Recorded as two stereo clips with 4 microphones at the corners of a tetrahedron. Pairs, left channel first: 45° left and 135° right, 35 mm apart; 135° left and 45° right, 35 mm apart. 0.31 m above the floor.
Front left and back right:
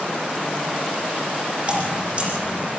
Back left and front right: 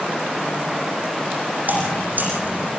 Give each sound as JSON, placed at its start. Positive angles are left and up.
{"t": 1.7, "sound": "dripping", "azimuth_deg": -75, "distance_m": 9.0}